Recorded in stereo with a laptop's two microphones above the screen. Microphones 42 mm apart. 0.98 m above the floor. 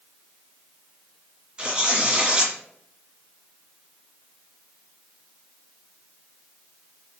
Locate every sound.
1.6 s tearing paper: 25° right (ahead or behind), 1.6 m